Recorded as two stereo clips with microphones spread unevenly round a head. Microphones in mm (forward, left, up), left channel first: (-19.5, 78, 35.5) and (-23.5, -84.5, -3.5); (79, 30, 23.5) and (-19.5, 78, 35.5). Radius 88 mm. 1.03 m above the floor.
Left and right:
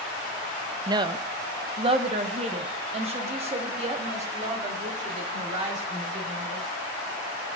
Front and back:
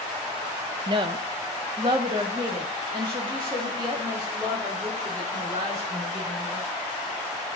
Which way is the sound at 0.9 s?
150° right.